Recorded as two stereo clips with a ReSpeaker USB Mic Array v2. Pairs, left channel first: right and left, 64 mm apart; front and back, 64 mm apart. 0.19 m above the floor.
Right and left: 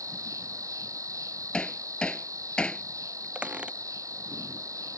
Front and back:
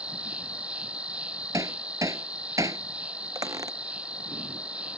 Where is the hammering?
165° right.